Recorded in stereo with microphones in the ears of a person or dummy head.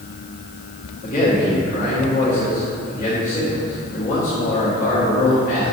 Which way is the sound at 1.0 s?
45° left (ahead or behind).